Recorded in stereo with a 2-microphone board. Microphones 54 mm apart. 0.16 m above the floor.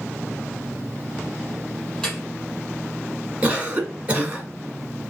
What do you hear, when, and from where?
2.0 s dripping: 15° left (ahead or behind), 2.5 m
3.4 s a cough: 25° right (ahead or behind), 1.4 m